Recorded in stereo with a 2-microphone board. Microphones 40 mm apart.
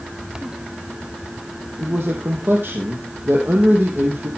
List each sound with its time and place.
1.8 s a man speaking: 55° right (ahead or behind), 3 m